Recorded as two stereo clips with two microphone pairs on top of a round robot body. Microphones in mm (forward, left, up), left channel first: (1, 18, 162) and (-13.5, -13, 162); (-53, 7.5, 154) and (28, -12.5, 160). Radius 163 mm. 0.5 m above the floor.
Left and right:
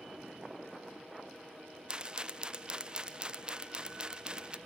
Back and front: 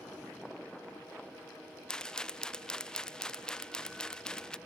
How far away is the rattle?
About 0.6 m.